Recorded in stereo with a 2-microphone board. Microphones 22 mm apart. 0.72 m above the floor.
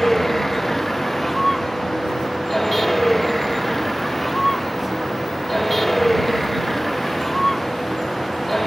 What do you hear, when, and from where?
0.0 s a vehicle: 5° left (ahead or behind)